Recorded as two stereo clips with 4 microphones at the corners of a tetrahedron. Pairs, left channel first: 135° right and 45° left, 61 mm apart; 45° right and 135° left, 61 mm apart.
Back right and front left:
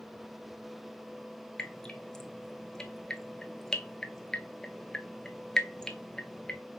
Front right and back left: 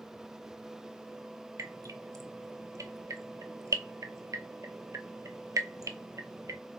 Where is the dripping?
145° left, 0.6 m.